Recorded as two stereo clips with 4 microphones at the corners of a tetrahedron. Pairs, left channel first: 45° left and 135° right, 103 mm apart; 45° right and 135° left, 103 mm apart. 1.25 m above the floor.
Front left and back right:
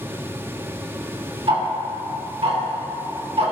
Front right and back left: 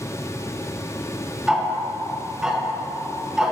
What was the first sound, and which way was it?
Ticking, 145° right.